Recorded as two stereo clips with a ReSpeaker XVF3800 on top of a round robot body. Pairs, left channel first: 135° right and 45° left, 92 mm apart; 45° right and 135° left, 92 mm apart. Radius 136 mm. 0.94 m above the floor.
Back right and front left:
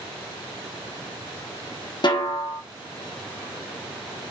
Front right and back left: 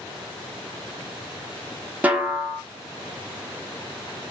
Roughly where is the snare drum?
Behind right.